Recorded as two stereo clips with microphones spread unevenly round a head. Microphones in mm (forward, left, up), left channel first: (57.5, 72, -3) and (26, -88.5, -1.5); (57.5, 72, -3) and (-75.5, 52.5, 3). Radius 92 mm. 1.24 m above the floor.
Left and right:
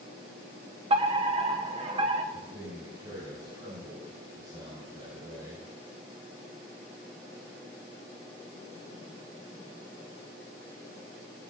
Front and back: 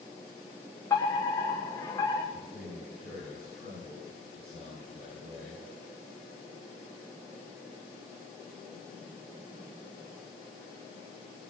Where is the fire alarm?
60° right, 1.6 m.